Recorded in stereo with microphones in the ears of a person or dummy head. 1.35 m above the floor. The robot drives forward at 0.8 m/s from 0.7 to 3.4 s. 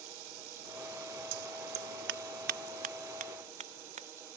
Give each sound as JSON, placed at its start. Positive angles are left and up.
{"t": 0.0, "sound": "running water", "side_deg": -80}
{"t": 1.3, "sound": "scissors", "side_deg": -65}